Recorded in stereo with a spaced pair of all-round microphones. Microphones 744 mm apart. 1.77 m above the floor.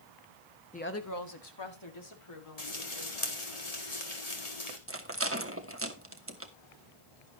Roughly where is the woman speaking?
Centre.